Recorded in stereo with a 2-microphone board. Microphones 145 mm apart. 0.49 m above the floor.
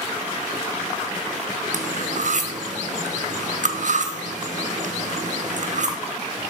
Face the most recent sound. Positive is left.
turn(degrees=-60)  # may be behind; listen again after turning